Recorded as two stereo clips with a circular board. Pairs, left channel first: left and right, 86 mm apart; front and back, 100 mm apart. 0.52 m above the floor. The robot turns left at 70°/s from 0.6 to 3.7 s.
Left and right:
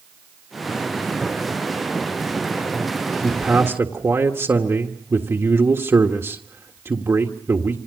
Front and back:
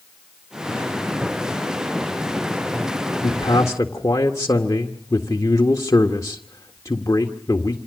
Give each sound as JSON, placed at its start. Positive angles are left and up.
{"t": 3.2, "sound": "a man speaking", "azimuth_deg": -10, "distance_m": 1.7}